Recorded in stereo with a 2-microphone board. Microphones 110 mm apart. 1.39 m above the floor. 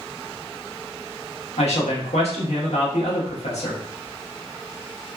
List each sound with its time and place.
1.6 s a man speaking: 80° left, 1.0 m